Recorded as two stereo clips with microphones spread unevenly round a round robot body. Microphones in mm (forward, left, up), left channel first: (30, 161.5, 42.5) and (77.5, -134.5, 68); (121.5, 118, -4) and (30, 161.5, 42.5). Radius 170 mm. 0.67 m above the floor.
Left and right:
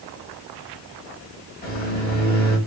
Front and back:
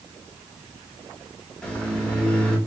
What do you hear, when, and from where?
1.6 s a microwave: 45° left, 1.4 m